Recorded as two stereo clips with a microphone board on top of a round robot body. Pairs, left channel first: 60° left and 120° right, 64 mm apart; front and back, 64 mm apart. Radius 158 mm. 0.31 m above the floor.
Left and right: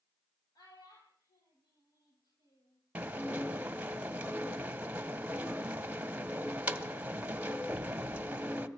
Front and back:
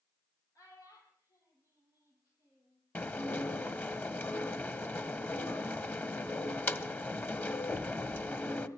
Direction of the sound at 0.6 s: 40° left.